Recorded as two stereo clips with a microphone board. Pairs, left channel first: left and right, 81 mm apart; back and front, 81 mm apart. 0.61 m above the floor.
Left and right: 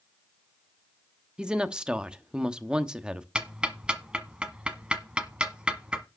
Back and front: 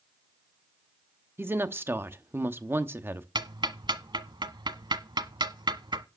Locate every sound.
1.4 s a woman speaking: 20° right, 0.9 m
3.4 s ticking: 15° right, 1.1 m